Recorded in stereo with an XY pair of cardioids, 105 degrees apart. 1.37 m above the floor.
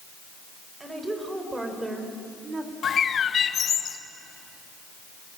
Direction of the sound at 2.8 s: 50° left.